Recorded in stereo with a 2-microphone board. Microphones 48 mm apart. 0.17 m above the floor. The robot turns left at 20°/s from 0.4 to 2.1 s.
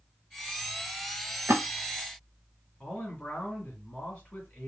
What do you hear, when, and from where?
1.5 s a splash: 65° right (ahead or behind), 0.9 m
2.8 s a man speaking: 15° left (ahead or behind), 1.6 m